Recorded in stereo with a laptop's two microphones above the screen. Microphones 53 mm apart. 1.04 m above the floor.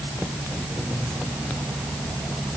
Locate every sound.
Only background noise.